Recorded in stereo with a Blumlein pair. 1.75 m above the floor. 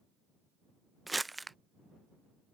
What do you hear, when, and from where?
1.1 s crumpling: 5° right